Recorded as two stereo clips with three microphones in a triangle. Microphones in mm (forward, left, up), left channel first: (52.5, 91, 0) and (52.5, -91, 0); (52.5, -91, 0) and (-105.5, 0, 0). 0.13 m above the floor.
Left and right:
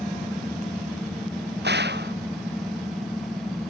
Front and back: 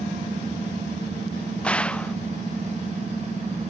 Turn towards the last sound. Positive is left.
turn(degrees=-115)